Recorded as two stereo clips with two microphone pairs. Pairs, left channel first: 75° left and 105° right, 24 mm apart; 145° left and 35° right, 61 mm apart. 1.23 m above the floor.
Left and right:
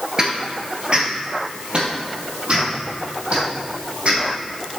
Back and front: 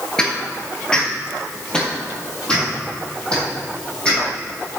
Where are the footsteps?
145° right, 1.4 m; by 4.8 s 135° right, 4 m.